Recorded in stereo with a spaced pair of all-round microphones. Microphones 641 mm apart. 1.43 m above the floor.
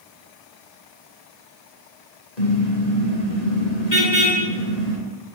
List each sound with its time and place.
2.4 s a car horn: 85° left, 9.5 m; by 5.0 s 75° left (ahead or behind), 10 m